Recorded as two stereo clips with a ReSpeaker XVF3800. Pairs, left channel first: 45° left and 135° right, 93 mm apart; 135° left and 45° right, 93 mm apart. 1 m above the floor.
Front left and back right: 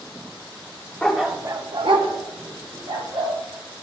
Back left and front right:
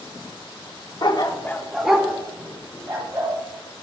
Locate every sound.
1.0 s a dog barking: 120° left, 0.8 m; by 3.3 s 110° right, 2.5 m